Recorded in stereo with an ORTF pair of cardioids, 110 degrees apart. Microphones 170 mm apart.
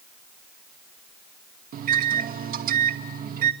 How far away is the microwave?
About 2.5 m.